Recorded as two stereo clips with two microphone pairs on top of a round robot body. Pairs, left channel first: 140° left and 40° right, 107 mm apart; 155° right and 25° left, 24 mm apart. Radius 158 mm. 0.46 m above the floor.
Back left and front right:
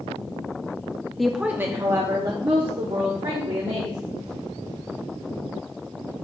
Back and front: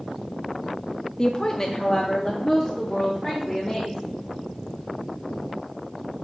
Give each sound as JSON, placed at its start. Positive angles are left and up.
{"t": 1.2, "sound": "a woman speaking", "azimuth_deg": -120, "distance_m": 0.7}